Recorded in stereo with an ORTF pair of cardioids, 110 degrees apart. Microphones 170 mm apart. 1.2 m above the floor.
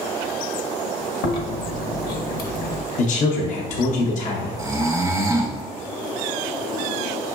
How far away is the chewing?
About 0.9 m.